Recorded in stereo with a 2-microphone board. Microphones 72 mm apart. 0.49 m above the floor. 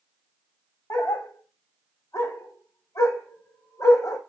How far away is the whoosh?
I don't hear a whoosh.